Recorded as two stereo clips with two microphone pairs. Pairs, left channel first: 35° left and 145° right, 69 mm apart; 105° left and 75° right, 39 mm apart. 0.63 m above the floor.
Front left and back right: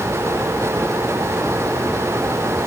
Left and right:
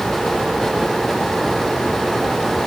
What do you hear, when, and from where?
Only background noise.